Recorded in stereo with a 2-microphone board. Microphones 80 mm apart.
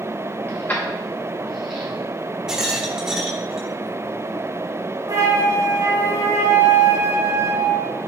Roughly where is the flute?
Right.